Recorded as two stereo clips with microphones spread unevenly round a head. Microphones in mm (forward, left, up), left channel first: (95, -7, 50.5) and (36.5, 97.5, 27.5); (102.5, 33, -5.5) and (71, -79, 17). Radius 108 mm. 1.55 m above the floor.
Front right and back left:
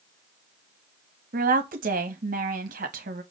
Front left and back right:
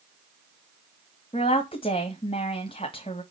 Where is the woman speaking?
140° left, 1.1 m.